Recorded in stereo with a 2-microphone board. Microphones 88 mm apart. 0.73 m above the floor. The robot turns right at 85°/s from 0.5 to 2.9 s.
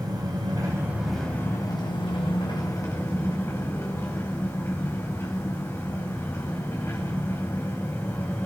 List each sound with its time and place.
0.0 s an engine running: 55° right, 4 m; by 8.5 s 150° left, 4 m